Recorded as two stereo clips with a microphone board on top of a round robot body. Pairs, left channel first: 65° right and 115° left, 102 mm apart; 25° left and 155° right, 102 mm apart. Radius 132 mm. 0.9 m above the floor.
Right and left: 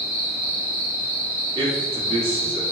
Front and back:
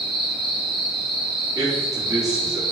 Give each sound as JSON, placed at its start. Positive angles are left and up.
{"t": 0.0, "sound": "an insect", "azimuth_deg": 110, "distance_m": 1.9}
{"t": 1.6, "sound": "a man speaking", "azimuth_deg": 145, "distance_m": 1.7}